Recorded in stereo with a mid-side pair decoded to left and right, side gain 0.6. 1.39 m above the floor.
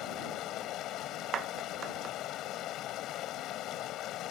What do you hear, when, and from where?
0.0 s running water: 60° left
1.3 s a clap: 45° right